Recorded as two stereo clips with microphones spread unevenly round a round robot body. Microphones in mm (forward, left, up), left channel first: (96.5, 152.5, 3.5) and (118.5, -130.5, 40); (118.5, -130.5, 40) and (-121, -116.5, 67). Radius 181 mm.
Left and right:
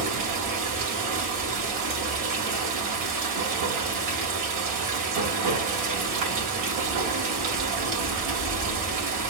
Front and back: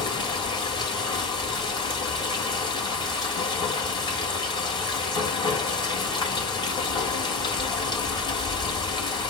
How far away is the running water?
About 2.5 m.